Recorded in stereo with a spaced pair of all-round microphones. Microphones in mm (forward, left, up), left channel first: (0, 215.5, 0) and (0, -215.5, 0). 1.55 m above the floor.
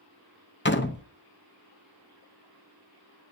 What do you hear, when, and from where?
0.7 s a door slam: 25° left (ahead or behind), 0.8 m